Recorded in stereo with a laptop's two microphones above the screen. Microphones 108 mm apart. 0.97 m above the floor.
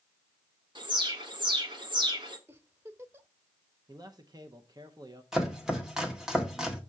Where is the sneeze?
No sneeze in this recording.